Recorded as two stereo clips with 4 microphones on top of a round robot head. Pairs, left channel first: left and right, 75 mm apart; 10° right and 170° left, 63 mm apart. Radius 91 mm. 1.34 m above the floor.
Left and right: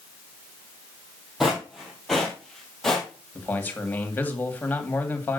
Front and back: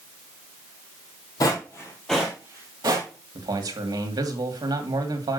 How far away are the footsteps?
About 1.7 m.